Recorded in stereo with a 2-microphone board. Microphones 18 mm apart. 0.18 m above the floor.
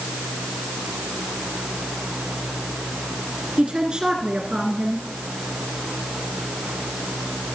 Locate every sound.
3.6 s a woman speaking: 55° right (ahead or behind), 2 m